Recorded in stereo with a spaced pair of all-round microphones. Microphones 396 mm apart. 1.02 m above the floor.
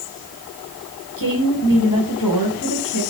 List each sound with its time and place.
1.2 s a woman speaking: 60° left (ahead or behind), 5 m